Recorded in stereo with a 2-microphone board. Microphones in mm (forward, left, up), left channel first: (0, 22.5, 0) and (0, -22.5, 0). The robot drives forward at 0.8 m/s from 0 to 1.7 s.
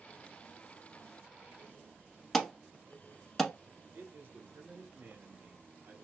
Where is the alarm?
5° left (ahead or behind), 0.8 m.